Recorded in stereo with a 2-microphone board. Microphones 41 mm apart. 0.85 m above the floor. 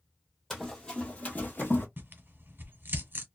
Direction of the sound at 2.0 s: 60° right (ahead or behind).